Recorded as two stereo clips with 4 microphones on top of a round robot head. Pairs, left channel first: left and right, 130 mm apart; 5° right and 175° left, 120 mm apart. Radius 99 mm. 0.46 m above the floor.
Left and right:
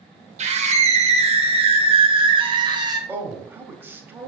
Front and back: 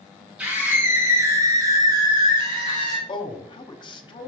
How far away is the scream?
About 2 m.